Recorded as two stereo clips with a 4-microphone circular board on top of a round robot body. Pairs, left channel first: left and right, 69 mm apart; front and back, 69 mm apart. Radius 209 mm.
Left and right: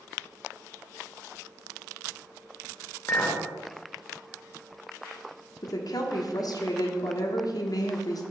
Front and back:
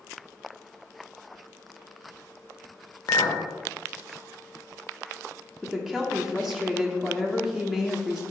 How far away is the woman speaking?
About 1.2 m.